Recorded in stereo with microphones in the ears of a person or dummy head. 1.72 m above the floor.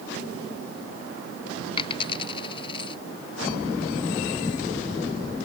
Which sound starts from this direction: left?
A dropped coin, at 1.8 s.